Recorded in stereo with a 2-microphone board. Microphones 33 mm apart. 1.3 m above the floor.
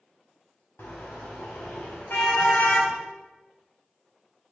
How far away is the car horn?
About 4 m.